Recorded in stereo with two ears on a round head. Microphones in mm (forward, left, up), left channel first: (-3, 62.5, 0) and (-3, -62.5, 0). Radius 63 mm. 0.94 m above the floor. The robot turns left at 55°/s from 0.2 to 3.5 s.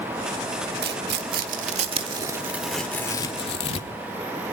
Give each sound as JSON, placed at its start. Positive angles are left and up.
{"t": 0.8, "sound": "tearing paper", "side_deg": -75, "distance_m": 1.6}